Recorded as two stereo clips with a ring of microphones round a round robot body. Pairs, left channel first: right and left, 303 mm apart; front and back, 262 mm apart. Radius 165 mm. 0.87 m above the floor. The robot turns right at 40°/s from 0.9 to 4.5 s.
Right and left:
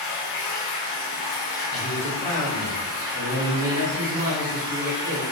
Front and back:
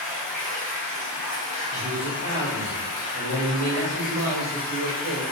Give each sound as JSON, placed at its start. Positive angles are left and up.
{"t": 0.0, "sound": "running water", "azimuth_deg": -85, "distance_m": 1.2}
{"t": 1.7, "sound": "a man speaking", "azimuth_deg": -25, "distance_m": 1.3}